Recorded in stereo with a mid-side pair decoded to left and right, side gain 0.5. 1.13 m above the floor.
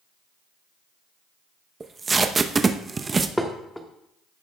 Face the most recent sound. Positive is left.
turn(degrees=5)